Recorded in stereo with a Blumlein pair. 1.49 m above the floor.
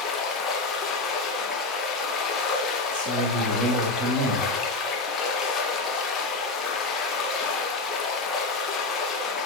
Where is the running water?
25° left, 1.6 m.